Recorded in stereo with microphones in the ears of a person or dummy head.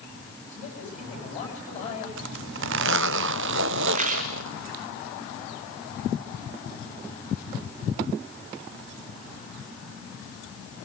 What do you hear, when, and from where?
0.5 s a man speaking: 45° left (ahead or behind), 9.5 m
2.2 s a zipper: 75° right (ahead or behind), 0.8 m
3.9 s a rattle: 45° right (ahead or behind), 2.5 m